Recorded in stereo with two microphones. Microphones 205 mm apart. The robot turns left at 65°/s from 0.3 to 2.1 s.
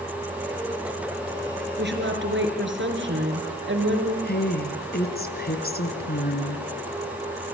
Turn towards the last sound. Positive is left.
turn(degrees=50)  # may be behind; listen again after turning